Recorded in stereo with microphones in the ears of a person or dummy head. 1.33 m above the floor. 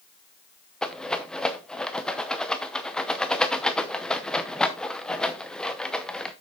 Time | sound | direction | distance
0.8 | a rattle | 5° left (ahead or behind) | 0.7 m